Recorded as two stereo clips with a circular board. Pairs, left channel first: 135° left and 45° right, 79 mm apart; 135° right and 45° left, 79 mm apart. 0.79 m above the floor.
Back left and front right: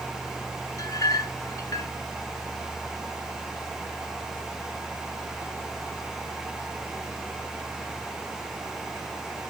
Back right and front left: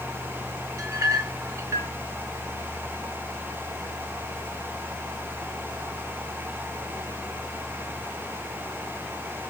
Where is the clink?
95° left, 0.8 m.